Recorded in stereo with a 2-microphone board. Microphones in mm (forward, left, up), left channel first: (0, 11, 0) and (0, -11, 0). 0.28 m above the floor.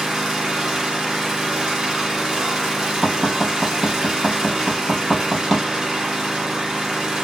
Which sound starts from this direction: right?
An engine running, at 0.0 s.